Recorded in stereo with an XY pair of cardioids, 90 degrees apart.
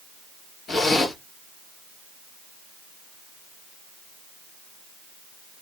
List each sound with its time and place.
0.7 s a zipper: 60° left, 1.6 m